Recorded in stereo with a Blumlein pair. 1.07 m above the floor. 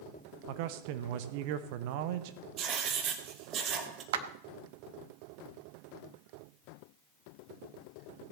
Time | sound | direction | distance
0.5 | a man speaking | 45° right | 0.8 m
2.6 | writing | 30° right | 1.7 m
4.1 | a clap | 55° right | 1.0 m